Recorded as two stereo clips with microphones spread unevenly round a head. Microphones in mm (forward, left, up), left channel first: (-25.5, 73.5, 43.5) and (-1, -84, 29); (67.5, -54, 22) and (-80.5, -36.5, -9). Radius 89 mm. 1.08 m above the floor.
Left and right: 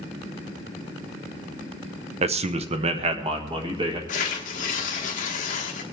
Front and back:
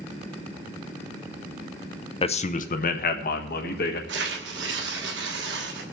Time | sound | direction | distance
2.2 | a man speaking | 60° right | 0.7 m
4.1 | tearing paper | 140° left | 1.3 m